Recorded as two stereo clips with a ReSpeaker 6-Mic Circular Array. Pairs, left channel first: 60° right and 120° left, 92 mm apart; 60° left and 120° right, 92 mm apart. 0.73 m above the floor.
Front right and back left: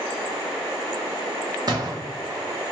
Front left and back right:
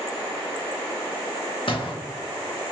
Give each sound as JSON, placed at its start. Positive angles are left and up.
{"t": 1.7, "sound": "a gunshot", "azimuth_deg": 75, "distance_m": 1.1}